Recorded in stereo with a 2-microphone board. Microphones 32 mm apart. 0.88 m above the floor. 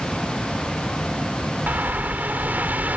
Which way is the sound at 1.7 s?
75° right (ahead or behind).